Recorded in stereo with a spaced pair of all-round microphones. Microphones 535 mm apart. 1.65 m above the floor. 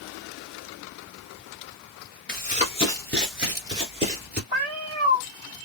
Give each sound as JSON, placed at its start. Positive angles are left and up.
{"t": 2.3, "sound": "running footsteps", "side_deg": 20, "distance_m": 1.7}
{"t": 4.5, "sound": "a cat meowing", "side_deg": -60, "distance_m": 1.8}